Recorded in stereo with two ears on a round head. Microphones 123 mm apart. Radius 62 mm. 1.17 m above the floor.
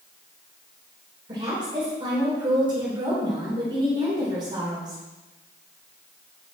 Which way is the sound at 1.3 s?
30° right (ahead or behind).